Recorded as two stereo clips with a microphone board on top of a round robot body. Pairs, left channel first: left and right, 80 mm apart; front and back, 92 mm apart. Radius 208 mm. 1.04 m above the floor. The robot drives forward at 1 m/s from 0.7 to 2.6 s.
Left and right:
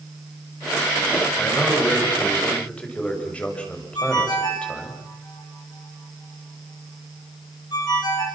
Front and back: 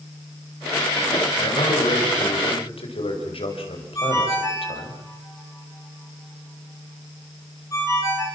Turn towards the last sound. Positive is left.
turn(degrees=55)